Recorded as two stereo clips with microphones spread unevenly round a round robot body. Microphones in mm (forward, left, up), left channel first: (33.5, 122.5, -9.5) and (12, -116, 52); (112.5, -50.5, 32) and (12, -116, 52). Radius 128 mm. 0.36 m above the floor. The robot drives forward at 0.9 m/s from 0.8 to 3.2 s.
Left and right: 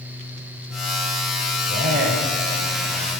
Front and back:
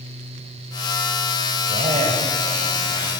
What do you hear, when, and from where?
1.7 s a man speaking: 145° right, 1.9 m; by 3.1 s 160° right, 3 m